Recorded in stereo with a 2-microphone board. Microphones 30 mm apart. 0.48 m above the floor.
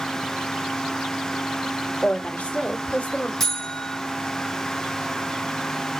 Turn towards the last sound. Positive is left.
turn(degrees=5)  # may be behind; listen again after turning